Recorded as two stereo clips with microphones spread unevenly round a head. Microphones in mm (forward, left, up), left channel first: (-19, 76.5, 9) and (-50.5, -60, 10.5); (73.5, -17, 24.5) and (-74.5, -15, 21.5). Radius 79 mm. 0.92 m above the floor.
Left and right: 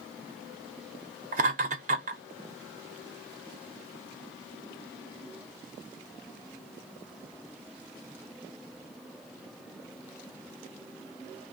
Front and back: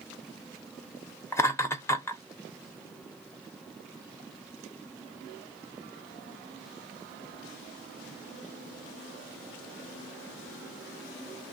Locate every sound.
1.3 s laughter: 70° right, 0.7 m